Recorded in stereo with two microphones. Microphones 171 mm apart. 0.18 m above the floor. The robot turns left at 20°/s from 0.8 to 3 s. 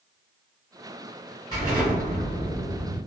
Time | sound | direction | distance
1.5 | an explosion | 20° left (ahead or behind) | 1.9 m